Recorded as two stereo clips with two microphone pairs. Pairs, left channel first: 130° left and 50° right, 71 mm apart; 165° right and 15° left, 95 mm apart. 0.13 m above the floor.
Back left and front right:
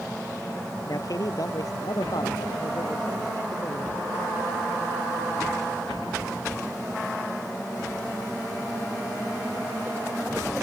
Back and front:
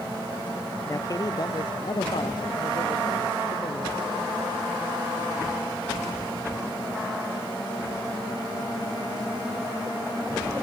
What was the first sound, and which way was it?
A man speaking, 140° left.